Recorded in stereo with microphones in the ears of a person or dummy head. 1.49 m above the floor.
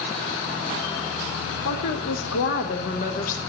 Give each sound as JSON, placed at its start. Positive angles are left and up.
{"t": 1.6, "sound": "a woman speaking", "side_deg": 60, "distance_m": 1.1}